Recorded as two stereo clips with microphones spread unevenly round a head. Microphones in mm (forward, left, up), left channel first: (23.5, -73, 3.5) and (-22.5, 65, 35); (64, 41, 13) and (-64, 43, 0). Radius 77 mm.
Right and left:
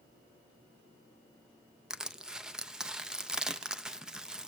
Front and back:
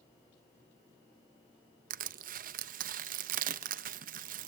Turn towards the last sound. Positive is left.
turn(degrees=-175)